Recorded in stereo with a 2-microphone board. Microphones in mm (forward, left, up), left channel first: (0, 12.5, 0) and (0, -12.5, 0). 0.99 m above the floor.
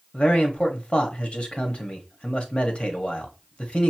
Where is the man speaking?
45° left (ahead or behind), 1.1 m.